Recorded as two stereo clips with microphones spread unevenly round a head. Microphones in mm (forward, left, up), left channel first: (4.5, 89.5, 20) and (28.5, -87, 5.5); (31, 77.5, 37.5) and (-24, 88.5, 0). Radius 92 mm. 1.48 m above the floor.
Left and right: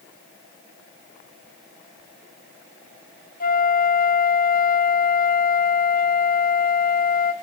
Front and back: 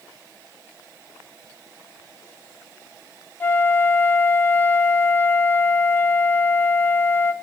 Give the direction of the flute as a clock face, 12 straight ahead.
10 o'clock.